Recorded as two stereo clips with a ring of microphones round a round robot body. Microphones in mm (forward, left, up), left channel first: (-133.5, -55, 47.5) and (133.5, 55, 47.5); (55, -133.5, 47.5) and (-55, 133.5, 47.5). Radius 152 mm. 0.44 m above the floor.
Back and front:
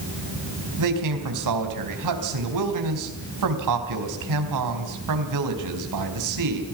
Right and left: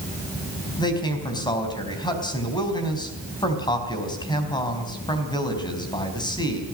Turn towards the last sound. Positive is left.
turn(degrees=10)